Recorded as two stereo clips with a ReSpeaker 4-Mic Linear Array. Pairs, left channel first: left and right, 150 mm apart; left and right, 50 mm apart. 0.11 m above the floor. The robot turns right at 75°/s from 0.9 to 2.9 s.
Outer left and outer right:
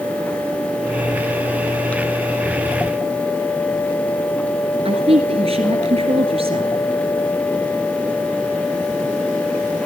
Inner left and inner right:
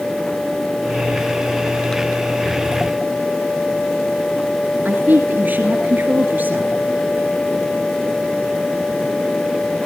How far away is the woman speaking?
About 1.9 m.